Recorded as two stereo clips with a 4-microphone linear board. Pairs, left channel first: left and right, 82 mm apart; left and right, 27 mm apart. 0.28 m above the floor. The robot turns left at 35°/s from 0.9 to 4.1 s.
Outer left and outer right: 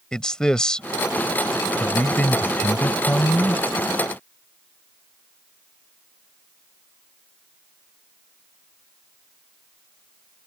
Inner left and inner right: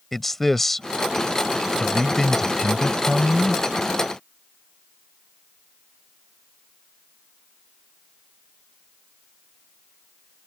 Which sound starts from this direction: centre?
A man speaking, at 0.1 s.